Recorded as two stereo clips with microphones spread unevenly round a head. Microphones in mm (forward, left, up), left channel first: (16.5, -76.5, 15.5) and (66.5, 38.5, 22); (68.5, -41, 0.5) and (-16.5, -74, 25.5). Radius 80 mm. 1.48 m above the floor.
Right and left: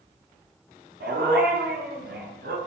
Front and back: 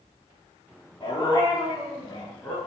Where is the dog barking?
100° left, 7.5 m; by 2.6 s 105° left, 7.5 m.